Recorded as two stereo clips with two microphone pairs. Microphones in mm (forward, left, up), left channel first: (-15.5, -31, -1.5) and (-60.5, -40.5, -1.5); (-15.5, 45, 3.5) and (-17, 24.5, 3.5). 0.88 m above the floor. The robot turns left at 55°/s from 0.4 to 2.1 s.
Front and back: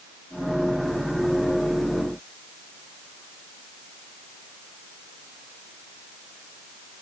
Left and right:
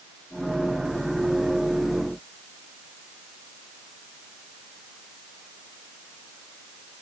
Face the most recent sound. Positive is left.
No sound to turn to.